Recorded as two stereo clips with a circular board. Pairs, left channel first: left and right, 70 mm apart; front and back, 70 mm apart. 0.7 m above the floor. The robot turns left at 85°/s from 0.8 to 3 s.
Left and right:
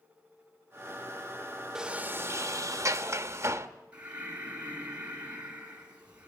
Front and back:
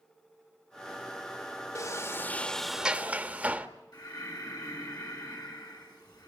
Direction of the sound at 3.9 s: 20° right.